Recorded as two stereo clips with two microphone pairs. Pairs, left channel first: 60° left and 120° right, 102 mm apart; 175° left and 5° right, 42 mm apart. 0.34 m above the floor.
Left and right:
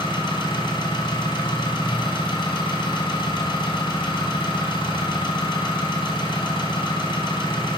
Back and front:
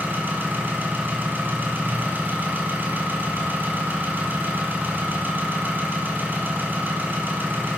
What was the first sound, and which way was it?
An engine running, 30° left.